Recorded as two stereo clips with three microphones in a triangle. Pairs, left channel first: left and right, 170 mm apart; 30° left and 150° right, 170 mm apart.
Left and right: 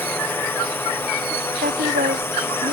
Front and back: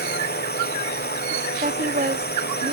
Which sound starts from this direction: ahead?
A drone, at 0.0 s.